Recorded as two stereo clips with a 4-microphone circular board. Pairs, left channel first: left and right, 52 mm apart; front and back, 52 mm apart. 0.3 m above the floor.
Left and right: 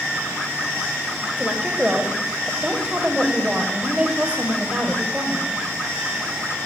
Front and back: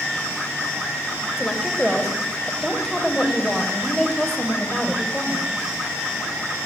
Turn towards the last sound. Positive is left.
turn(degrees=-65)